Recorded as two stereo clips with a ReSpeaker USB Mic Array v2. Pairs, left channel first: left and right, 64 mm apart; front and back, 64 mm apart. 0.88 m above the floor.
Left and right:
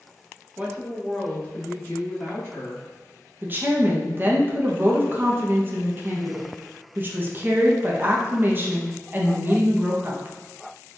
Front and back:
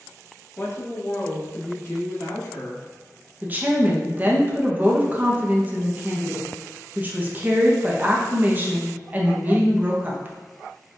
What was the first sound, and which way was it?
A woman speaking, 40° right.